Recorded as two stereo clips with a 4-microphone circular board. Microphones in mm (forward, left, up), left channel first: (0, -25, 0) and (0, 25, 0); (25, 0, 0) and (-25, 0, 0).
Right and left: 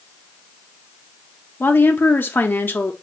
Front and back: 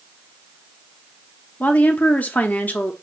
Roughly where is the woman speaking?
Ahead right.